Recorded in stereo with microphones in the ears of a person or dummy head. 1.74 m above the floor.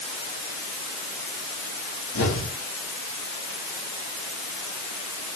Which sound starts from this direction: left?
An explosion, at 2.1 s.